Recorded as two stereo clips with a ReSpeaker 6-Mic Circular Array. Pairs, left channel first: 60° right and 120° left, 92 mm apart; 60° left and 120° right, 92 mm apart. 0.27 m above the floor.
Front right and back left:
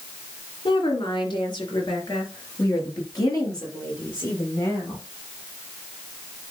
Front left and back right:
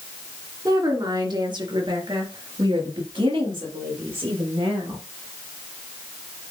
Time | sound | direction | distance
0.7 | a woman speaking | 80° right | 2.5 m